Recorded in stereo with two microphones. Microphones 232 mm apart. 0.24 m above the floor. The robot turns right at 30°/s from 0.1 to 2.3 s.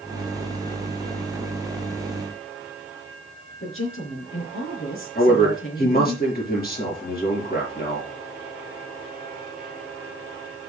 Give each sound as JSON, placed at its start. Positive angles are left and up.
{"t": 3.6, "sound": "a woman speaking", "side_deg": 70, "distance_m": 3.5}
{"t": 5.2, "sound": "a man speaking", "side_deg": 45, "distance_m": 4.5}